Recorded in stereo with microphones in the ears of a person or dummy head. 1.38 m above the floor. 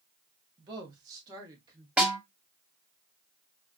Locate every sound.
0.6 s a woman speaking: 30° right (ahead or behind), 1.5 m; by 1.9 s 25° right (ahead or behind), 2 m
2.0 s a snare drum: 15° right (ahead or behind), 2.5 m